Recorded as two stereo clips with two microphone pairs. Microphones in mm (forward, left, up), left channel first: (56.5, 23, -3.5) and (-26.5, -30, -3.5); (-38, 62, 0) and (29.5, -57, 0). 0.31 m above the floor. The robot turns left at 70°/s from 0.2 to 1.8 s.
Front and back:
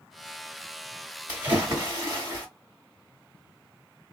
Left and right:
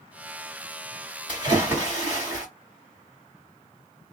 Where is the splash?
85° right, 1.8 m; by 2.5 s 120° right, 1.8 m.